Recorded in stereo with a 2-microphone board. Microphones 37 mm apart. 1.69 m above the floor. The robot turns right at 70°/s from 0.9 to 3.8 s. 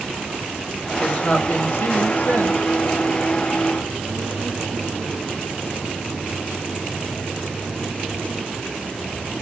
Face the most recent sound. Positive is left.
turn(degrees=-155)